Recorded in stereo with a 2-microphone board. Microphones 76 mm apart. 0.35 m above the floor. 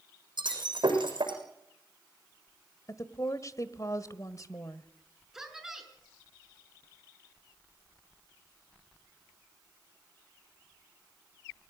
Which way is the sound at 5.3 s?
5° right (ahead or behind).